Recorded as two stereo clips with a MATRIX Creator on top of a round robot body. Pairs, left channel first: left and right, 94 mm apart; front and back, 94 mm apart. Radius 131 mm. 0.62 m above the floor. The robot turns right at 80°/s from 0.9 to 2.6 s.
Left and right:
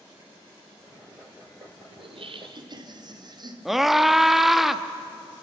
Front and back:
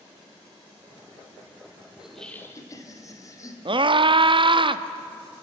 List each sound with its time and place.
2.0 s laughter: 100° right, 2.5 m; by 3.5 s 55° right, 2.5 m
3.6 s a scream: 175° right, 1.1 m